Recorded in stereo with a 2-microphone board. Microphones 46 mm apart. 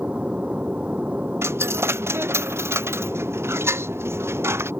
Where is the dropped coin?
60° right (ahead or behind).